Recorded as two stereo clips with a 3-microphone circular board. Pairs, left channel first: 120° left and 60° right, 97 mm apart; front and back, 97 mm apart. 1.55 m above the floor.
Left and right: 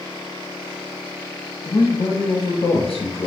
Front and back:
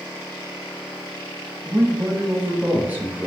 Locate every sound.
1.6 s a man speaking: 110° left, 1.0 m